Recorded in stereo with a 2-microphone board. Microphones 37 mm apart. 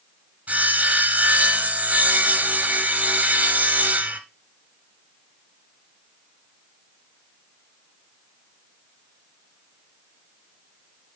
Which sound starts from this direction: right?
Sawing, at 0.5 s.